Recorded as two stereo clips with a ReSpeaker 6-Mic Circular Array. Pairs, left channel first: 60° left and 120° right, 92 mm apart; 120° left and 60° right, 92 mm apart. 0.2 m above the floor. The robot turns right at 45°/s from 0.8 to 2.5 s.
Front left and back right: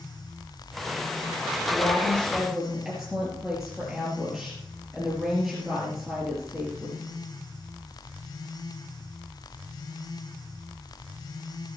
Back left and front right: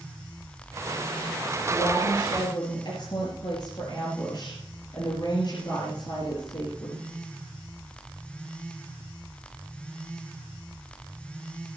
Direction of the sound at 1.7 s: 115° left.